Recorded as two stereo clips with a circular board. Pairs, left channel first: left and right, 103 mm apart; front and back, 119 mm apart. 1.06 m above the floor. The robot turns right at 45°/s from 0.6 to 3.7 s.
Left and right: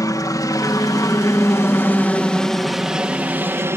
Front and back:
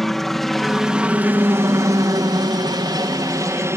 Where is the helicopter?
85° left; by 3.8 s 135° right.